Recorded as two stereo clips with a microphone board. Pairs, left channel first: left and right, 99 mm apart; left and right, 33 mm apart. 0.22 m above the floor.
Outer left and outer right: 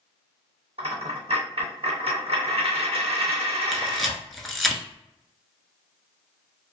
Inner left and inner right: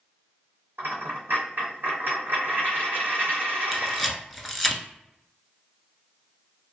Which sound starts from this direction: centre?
A camera shutter, at 3.7 s.